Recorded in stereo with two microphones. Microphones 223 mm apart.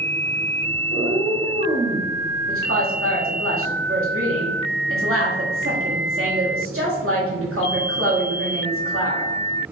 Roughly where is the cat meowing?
Right.